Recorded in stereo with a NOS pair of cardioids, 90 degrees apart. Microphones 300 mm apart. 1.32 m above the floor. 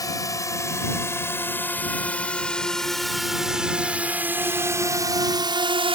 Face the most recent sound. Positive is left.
turn(degrees=-20)